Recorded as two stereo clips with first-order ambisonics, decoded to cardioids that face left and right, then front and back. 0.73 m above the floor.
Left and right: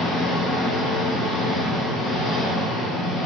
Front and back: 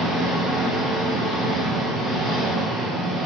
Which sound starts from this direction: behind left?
An engine running, at 0.0 s.